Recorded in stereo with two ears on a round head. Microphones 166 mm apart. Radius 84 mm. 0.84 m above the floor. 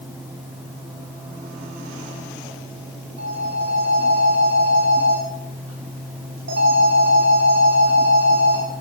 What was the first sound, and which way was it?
A phone ringing, 70° right (ahead or behind).